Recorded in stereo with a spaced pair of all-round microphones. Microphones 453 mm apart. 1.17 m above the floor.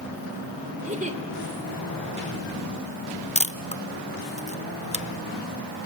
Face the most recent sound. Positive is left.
turn(degrees=15)  # may be behind; listen again after turning